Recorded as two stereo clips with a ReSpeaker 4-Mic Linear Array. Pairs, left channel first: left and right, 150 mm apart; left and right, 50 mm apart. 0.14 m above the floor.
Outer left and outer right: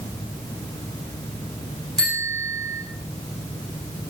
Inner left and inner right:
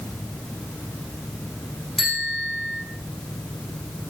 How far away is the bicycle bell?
About 10 m.